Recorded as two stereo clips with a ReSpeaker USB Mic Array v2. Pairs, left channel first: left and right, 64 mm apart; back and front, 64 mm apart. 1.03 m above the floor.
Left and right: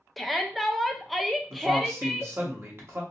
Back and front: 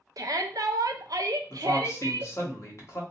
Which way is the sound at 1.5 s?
140° right.